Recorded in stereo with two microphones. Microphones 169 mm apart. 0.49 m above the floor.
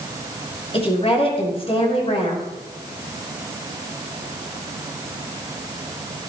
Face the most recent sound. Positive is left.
turn(degrees=35)  # may be behind; listen again after turning